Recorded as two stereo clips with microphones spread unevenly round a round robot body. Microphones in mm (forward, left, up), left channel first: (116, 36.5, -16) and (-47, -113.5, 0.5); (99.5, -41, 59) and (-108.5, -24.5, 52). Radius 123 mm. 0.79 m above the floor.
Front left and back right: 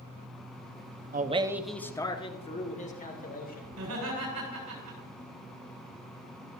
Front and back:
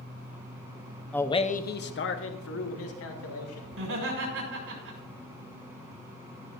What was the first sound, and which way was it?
A man speaking, 90° right.